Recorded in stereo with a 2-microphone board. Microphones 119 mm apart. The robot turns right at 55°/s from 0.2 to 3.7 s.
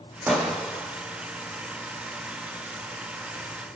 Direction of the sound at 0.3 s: 20° right.